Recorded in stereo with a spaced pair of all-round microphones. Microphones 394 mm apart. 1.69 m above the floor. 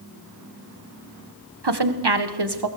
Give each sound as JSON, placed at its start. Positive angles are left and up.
{"t": 1.6, "sound": "a woman speaking", "side_deg": -85, "distance_m": 1.7}